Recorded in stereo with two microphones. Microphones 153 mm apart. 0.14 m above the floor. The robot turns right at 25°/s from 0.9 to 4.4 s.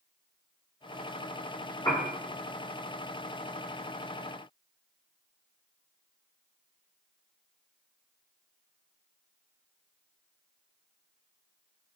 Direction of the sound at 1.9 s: 25° left (ahead or behind).